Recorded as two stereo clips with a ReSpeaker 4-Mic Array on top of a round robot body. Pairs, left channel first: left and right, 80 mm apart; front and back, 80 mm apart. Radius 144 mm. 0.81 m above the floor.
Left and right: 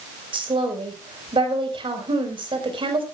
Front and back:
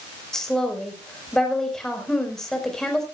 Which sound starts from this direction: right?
A woman speaking, at 0.3 s.